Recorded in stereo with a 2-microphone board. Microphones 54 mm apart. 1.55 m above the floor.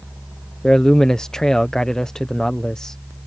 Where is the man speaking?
15° left (ahead or behind).